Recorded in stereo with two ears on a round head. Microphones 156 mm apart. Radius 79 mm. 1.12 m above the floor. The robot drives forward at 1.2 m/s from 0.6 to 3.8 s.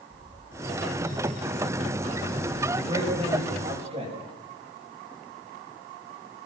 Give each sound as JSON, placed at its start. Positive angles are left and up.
{"t": 0.1, "sound": "a bird", "side_deg": -65, "distance_m": 5.0}
{"t": 2.8, "sound": "a man speaking", "side_deg": -30, "distance_m": 7.5}